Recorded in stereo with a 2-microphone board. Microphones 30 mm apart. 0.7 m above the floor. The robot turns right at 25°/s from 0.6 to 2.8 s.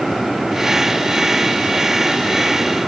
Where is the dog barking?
I don't hear a dog barking.